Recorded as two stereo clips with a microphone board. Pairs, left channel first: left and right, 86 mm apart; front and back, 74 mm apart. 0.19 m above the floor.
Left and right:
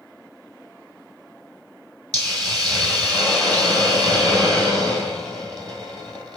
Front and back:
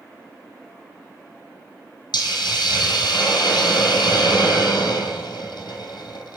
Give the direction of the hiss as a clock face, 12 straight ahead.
12 o'clock.